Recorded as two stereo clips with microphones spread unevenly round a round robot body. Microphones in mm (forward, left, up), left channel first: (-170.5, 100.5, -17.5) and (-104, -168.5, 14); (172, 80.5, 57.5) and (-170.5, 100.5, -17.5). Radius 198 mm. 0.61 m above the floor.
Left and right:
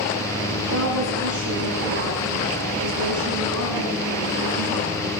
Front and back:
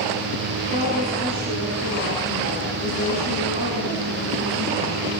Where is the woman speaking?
110° right, 7.5 m.